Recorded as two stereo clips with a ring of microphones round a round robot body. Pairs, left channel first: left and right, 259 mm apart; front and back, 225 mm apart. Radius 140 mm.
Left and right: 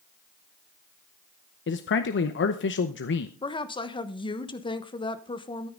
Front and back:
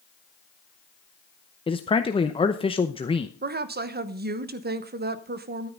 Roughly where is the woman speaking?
Behind left.